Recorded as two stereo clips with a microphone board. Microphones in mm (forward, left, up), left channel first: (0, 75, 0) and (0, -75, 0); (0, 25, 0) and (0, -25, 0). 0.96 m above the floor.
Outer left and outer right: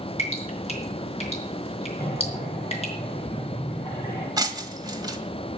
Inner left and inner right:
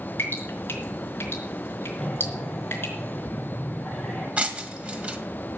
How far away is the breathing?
About 6.5 m.